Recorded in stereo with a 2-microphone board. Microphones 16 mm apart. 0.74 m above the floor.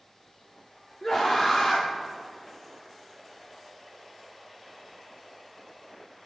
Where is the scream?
35° left (ahead or behind), 1.9 m.